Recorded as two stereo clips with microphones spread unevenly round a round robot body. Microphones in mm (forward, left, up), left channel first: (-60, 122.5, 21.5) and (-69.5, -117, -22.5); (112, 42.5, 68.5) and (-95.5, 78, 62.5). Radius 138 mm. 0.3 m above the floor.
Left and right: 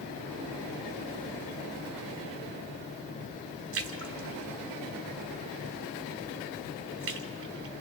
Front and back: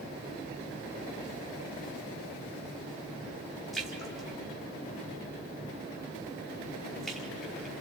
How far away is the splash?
About 1.2 m.